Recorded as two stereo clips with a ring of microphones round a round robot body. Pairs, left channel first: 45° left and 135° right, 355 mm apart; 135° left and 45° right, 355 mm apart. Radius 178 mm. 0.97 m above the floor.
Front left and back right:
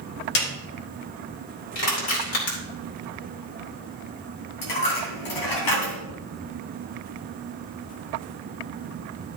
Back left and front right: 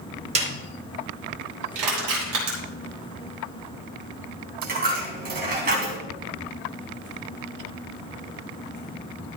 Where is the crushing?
5° right, 4 m.